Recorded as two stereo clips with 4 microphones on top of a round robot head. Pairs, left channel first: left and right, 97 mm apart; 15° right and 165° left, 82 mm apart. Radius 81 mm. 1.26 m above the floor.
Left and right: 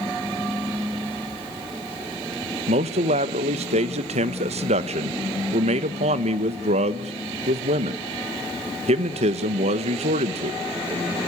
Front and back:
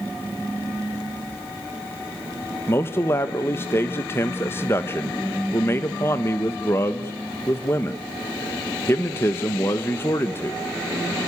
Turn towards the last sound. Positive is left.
turn(degrees=-80)